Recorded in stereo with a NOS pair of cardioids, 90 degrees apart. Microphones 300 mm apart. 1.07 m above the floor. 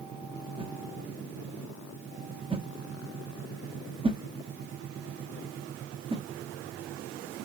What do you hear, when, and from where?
0.6 s a whoosh: 20° right, 1.5 m